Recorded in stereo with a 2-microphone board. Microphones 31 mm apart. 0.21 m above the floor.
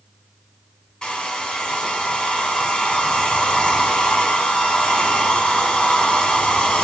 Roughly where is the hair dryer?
Left.